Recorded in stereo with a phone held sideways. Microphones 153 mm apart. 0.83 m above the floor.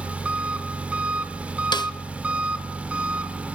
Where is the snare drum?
30° left (ahead or behind), 0.9 m.